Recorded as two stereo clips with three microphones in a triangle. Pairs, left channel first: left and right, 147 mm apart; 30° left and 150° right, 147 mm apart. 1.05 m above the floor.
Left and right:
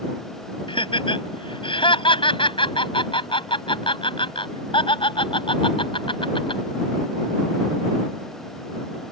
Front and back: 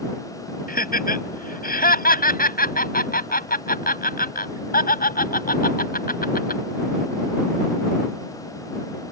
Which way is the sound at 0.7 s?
35° left.